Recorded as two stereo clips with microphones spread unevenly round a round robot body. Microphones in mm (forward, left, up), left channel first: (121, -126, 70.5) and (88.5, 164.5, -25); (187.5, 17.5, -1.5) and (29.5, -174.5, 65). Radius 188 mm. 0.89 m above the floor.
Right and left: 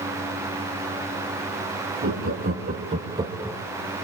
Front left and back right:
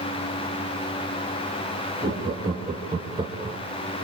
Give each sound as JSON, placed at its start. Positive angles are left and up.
{"t": 2.0, "sound": "laughter", "azimuth_deg": 145, "distance_m": 2.0}